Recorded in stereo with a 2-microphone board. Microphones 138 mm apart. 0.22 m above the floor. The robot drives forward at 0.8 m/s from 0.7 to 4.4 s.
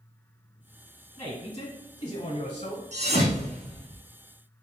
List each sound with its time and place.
1.2 s a man speaking: 25° left (ahead or behind), 2 m; by 2.8 s 40° left (ahead or behind), 1.6 m
2.9 s a thud: 60° right (ahead or behind), 1.3 m; by 4.0 s 35° right (ahead or behind), 1.9 m